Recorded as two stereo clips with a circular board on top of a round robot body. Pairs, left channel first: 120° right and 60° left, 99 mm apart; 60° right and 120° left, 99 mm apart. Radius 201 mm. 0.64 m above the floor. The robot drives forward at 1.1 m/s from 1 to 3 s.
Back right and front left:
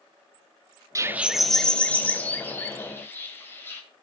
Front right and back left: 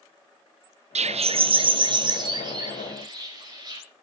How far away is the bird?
About 0.5 m.